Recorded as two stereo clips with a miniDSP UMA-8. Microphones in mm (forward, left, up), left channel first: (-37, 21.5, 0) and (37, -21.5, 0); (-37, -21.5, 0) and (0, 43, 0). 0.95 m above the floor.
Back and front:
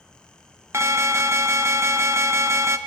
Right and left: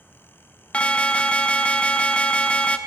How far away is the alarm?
About 0.8 m.